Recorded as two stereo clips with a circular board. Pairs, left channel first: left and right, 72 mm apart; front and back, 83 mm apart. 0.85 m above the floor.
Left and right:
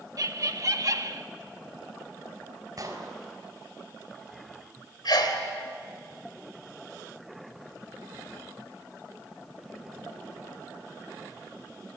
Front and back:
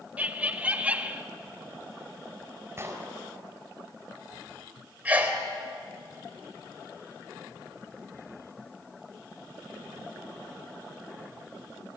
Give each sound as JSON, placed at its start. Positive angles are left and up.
{"t": 0.2, "sound": "laughter", "azimuth_deg": -110, "distance_m": 1.5}
{"t": 2.8, "sound": "an explosion", "azimuth_deg": -125, "distance_m": 4.0}
{"t": 5.0, "sound": "a sneeze", "azimuth_deg": 110, "distance_m": 4.0}